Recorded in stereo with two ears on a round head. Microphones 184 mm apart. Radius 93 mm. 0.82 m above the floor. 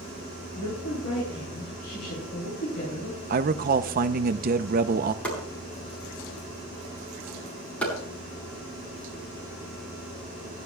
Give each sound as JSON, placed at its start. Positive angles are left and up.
{"t": 0.6, "sound": "a woman speaking", "side_deg": 50, "distance_m": 8.5}
{"t": 3.3, "sound": "a man speaking", "side_deg": -45, "distance_m": 0.6}
{"t": 5.2, "sound": "chopping", "side_deg": 5, "distance_m": 9.5}